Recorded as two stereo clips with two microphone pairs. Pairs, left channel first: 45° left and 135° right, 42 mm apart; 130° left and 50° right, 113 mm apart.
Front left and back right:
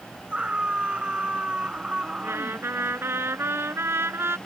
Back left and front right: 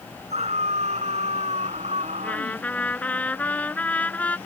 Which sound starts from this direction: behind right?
A trumpet, at 2.2 s.